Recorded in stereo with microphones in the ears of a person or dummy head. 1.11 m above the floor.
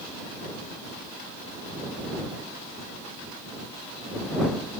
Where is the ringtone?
No ringtone in this recording.